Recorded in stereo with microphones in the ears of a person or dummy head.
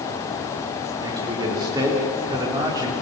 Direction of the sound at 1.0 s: 25° right (ahead or behind).